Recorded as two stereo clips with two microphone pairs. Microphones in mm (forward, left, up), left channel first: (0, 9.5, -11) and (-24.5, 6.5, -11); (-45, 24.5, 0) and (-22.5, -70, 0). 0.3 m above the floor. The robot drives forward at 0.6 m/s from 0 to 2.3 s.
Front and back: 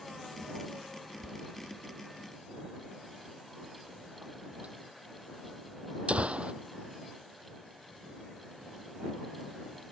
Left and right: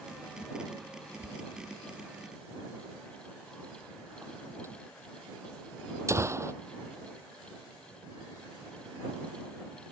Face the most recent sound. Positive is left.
turn(degrees=-140)